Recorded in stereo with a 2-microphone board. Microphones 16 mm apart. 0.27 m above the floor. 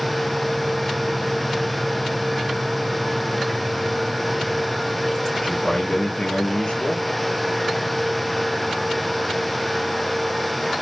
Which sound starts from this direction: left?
A man speaking, at 5.3 s.